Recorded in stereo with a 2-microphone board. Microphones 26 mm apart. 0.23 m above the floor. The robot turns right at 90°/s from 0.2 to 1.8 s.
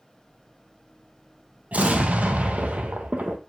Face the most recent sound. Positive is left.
turn(degrees=-70)  # may be behind; listen again after turning